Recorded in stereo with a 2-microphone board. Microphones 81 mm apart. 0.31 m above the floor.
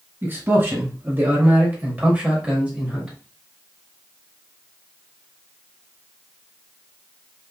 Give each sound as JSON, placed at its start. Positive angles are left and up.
{"t": 0.2, "sound": "a man speaking", "side_deg": -30, "distance_m": 1.8}